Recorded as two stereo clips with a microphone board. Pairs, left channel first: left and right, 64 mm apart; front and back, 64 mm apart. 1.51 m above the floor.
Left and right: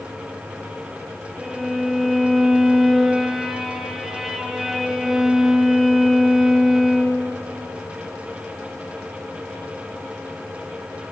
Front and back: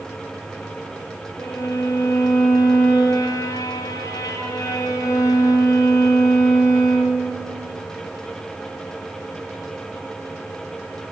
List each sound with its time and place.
1.4 s a violin: 5° right, 0.7 m